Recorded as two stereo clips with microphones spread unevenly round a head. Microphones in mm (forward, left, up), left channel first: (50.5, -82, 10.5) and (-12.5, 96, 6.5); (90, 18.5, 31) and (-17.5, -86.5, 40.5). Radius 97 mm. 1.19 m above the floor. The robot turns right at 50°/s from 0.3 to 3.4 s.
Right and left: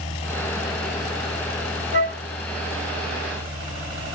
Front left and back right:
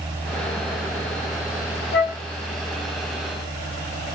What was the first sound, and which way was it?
A flute, 55° left.